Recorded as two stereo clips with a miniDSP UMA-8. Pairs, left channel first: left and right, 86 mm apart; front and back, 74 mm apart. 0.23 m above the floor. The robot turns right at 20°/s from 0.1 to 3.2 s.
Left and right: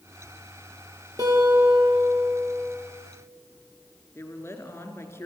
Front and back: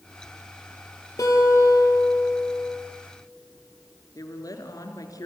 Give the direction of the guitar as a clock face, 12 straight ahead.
2 o'clock.